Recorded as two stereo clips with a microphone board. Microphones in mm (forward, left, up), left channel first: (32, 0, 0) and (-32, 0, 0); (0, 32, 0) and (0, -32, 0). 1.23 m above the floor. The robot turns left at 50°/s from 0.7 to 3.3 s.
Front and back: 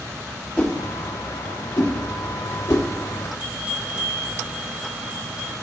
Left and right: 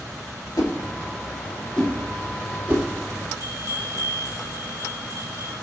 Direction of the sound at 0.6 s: 60° left.